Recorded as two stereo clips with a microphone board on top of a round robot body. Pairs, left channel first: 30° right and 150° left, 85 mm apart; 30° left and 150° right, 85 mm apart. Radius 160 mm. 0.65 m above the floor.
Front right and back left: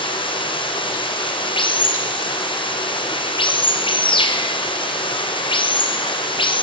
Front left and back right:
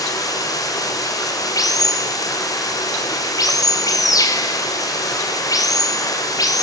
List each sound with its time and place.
0.0 s running water: 15° right, 3.5 m